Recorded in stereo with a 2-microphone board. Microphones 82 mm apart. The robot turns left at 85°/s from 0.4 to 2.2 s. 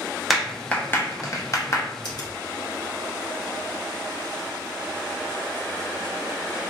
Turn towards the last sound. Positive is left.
turn(degrees=50)  # may be behind; listen again after turning